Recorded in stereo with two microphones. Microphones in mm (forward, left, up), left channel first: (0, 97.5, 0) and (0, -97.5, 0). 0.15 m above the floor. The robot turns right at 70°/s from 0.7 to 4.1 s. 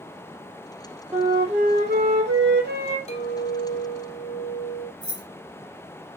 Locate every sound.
1.1 s a flute: 175° right, 1.2 m; by 3.0 s 45° right, 1.2 m
3.1 s a clink: 40° left, 1.2 m; by 4.9 s 115° left, 1.2 m
5.0 s keys jangling: 25° right (ahead or behind), 1.3 m